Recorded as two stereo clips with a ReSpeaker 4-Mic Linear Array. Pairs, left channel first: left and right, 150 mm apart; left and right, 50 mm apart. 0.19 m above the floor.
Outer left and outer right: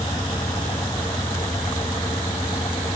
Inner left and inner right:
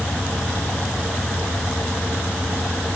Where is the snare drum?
No snare drum in this recording.